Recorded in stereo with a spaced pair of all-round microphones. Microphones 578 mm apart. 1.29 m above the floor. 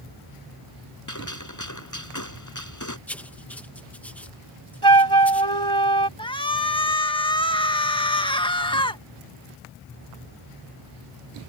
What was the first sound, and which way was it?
A gunshot, 30° left (ahead or behind).